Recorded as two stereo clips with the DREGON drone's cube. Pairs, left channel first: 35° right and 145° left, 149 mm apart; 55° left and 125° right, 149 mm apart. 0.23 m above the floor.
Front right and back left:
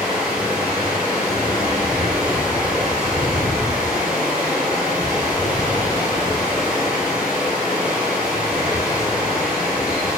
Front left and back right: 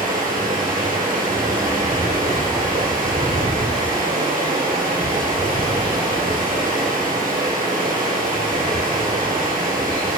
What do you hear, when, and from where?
0.0 s running water: 130° right, 1.8 m